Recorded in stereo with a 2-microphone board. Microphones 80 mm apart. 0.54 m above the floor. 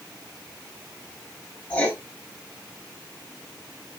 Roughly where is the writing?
Centre.